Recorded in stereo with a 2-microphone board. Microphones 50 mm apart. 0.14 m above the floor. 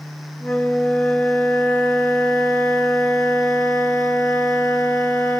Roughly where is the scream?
I don't hear a scream.